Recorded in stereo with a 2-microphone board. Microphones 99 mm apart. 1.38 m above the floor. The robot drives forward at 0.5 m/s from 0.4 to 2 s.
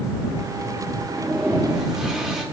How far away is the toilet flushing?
About 2 m.